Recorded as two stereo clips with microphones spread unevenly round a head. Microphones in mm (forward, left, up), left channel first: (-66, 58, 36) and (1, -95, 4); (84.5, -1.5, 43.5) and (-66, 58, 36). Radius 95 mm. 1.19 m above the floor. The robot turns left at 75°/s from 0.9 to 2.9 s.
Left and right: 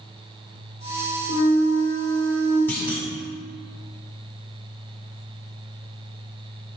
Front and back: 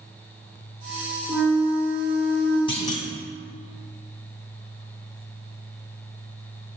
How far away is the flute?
About 2.5 m.